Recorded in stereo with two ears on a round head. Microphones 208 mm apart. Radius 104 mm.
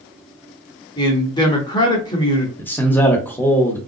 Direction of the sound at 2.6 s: 10° left (ahead or behind).